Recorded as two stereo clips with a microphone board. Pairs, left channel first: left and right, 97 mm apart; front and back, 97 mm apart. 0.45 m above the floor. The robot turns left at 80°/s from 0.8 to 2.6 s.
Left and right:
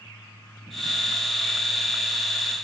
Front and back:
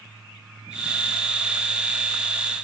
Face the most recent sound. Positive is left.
No sound to turn to.